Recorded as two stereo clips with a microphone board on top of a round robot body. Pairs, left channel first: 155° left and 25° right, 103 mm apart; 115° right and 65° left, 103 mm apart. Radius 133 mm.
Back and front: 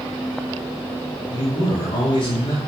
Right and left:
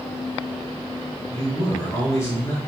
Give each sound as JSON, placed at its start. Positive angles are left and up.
{"t": 1.3, "sound": "a man speaking", "azimuth_deg": -175, "distance_m": 3.0}